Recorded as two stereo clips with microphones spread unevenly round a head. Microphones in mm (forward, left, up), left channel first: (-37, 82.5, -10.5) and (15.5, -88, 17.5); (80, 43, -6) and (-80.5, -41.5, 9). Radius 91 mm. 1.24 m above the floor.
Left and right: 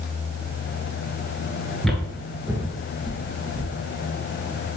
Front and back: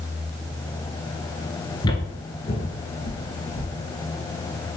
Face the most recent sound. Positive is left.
turn(degrees=-15)